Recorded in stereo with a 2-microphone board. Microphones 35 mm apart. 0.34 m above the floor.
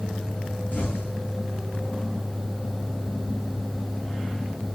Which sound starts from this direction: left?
An explosion, at 0.7 s.